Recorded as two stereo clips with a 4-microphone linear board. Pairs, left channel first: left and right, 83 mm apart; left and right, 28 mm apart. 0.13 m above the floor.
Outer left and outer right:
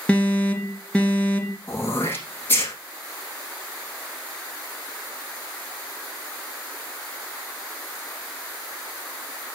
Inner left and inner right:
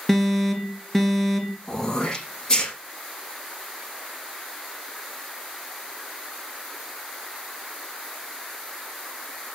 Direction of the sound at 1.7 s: 20° left (ahead or behind).